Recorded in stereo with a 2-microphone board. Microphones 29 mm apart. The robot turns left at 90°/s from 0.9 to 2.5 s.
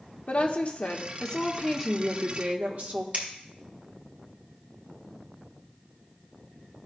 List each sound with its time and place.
0.3 s a woman speaking: 75° left, 1.2 m; by 3.0 s 65° right, 1.2 m
3.1 s scissors: 55° right (ahead or behind), 1.9 m